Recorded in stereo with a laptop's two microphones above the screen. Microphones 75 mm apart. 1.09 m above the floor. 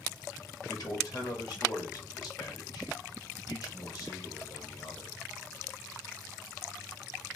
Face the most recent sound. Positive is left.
turn(degrees=55)  # may be behind; listen again after turning